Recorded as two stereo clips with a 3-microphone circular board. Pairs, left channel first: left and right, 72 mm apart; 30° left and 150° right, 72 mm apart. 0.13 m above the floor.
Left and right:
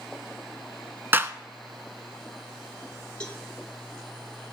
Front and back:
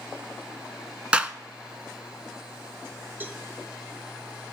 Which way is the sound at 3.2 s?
160° left.